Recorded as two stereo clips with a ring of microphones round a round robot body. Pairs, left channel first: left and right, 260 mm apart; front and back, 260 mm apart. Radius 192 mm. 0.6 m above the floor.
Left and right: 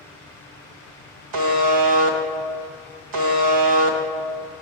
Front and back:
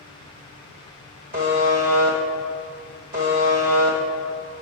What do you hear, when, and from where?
1.3 s a buzzer: 110° right, 0.7 m